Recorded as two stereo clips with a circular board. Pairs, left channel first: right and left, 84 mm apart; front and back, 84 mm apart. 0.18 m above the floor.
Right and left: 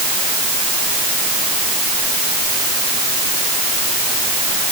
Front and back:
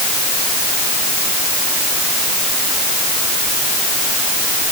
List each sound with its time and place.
Only background noise.